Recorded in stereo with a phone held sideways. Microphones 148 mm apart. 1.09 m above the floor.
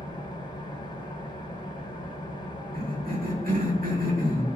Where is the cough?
80° right, 2 m.